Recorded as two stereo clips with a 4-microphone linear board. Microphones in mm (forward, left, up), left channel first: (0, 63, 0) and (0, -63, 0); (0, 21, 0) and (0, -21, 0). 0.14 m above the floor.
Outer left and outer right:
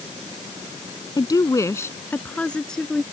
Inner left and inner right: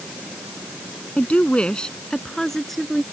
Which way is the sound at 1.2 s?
35° left (ahead or behind).